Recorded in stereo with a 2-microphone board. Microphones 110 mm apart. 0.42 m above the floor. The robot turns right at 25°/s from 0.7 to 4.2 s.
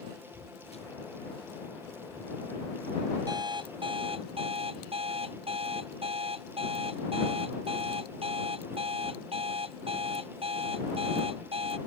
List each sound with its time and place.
0.3 s footsteps: 80° left; by 2.4 s 20° left (ahead or behind)
3.3 s an alarm clock: 40° right (ahead or behind); by 11.8 s 60° right (ahead or behind)